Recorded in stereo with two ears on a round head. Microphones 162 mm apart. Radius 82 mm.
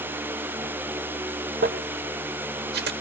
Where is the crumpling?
60° right (ahead or behind), 1.2 m.